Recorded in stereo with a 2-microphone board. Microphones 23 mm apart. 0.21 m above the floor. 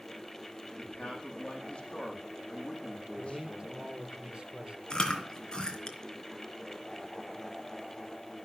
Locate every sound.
0.8 s a man speaking: 50° left (ahead or behind), 8 m
3.2 s a man speaking: 55° right (ahead or behind), 3.5 m
4.9 s chewing: 35° left (ahead or behind), 3.5 m